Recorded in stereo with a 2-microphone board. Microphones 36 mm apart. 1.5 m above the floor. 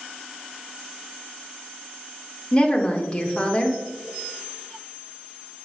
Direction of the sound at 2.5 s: 30° left (ahead or behind).